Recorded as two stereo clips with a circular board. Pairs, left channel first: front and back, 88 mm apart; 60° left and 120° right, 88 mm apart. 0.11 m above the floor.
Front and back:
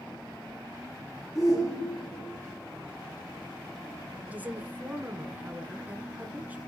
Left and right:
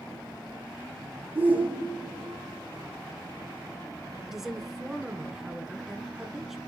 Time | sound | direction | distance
1.4 | a shout | 50° right | 4.5 m
4.3 | a woman speaking | 160° left | 1.1 m